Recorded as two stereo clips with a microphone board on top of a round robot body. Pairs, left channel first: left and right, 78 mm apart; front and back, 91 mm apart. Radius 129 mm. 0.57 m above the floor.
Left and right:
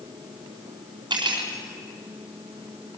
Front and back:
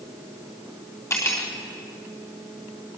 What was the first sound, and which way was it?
Cutlery clinking, 60° right.